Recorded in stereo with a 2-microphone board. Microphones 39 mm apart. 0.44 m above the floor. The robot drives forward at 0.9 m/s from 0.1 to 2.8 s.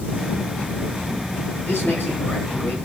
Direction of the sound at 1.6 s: 65° left (ahead or behind).